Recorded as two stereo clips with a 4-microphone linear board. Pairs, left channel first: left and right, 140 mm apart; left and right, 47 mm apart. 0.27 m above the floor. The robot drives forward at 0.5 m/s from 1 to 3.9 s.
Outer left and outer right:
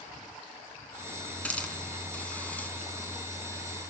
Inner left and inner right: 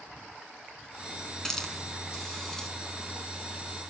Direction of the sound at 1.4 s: 10° left (ahead or behind).